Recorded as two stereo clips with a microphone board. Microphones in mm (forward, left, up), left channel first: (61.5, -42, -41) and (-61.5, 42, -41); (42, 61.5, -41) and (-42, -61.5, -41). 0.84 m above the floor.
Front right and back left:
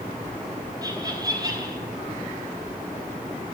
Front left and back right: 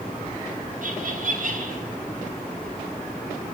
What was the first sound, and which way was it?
Laughter, 150° right.